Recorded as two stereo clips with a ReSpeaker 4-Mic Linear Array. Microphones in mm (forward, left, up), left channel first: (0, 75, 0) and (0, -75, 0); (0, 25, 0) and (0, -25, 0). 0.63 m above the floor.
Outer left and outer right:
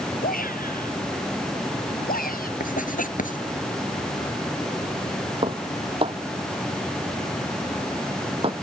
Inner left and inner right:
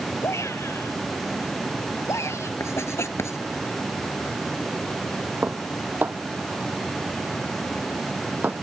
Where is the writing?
65° left (ahead or behind).